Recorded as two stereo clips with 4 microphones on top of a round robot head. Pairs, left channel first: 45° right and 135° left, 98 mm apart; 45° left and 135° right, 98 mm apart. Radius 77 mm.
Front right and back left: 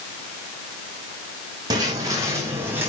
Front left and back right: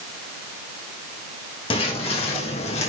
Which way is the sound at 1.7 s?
80° left.